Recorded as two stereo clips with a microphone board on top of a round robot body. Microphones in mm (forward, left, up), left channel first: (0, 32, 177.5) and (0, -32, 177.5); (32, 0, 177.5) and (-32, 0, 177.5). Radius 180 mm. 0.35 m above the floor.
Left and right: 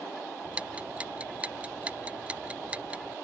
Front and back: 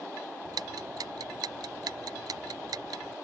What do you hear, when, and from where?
0.5 s ticking: 160° right